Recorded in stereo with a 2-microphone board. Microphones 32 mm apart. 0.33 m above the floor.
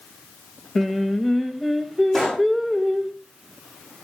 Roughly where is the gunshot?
Centre.